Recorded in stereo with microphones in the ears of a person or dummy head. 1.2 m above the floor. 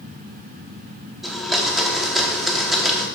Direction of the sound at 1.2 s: 5° right (ahead or behind).